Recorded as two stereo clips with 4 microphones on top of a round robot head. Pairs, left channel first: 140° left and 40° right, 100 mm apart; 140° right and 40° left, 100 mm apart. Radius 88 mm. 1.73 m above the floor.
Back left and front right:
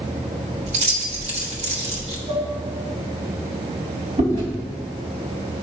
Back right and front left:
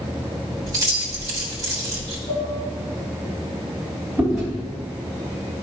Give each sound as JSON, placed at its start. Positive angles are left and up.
{"t": 0.7, "sound": "keys jangling", "azimuth_deg": -20, "distance_m": 1.2}
{"t": 2.3, "sound": "dishes clattering", "azimuth_deg": -100, "distance_m": 3.0}
{"t": 4.2, "sound": "chewing", "azimuth_deg": -50, "distance_m": 2.5}